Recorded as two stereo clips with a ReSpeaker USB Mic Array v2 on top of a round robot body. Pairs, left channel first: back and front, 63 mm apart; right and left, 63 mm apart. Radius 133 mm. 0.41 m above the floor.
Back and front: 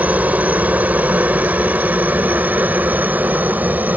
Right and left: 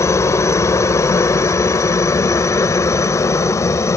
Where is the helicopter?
60° right.